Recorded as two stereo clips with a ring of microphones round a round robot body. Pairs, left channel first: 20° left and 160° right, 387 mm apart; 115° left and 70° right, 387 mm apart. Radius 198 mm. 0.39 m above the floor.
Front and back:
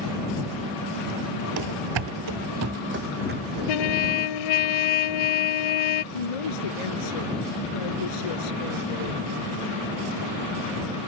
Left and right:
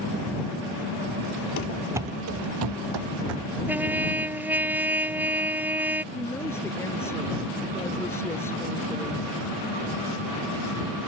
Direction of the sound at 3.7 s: 15° left.